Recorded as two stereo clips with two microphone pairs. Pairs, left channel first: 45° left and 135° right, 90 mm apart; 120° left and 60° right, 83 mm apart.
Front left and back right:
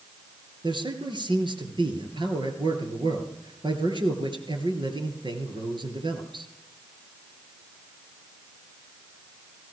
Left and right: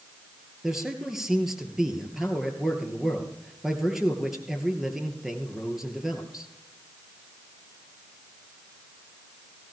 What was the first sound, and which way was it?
A man speaking, 150° right.